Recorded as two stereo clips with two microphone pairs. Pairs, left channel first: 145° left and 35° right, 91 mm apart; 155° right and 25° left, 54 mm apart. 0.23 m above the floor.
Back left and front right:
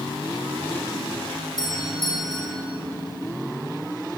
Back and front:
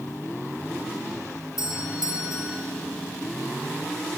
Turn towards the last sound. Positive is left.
turn(degrees=-170)